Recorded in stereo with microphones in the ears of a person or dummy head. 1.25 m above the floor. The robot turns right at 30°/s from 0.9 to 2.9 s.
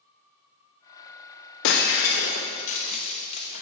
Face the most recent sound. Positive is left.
turn(degrees=40)  # may be behind; listen again after turning